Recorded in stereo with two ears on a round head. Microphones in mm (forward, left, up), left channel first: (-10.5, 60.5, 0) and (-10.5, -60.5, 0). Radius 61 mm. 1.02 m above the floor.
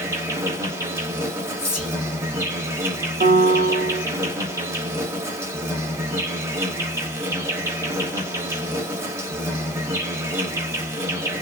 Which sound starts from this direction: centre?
An insect, at 0.0 s.